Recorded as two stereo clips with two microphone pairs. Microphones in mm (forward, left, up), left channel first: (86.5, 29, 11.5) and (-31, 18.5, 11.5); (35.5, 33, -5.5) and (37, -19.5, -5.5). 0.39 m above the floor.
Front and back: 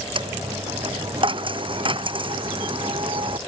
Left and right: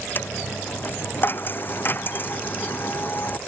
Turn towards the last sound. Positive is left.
turn(degrees=140)